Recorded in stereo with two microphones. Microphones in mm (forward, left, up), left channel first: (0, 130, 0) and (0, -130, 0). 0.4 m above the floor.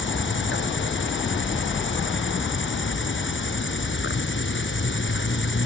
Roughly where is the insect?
Left.